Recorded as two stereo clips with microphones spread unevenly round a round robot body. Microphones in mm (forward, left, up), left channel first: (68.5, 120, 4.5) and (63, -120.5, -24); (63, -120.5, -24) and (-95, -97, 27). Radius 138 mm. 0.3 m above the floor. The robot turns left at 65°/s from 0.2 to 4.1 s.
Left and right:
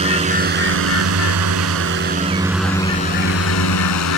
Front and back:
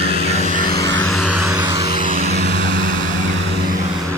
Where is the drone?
30° right; by 4.2 s 85° left.